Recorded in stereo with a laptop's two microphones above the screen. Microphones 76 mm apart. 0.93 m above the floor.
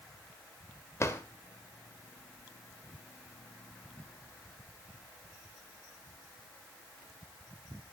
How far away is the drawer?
About 0.8 m.